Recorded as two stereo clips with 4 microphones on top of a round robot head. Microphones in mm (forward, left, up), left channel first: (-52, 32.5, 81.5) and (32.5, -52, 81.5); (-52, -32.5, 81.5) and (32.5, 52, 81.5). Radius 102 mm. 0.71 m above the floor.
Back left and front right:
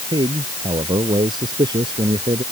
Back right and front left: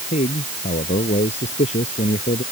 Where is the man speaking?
100° right.